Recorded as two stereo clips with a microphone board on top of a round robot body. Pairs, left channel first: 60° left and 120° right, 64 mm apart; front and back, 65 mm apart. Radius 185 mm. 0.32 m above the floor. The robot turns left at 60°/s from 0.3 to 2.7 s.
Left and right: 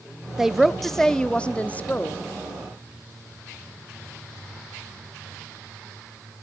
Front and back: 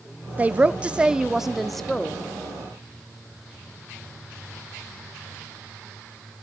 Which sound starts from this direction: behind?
A woman speaking, at 0.4 s.